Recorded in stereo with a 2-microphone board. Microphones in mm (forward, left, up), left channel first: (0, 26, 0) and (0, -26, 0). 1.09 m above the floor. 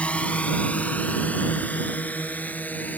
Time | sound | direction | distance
0.0 | a drone | 20° left (ahead or behind) | ?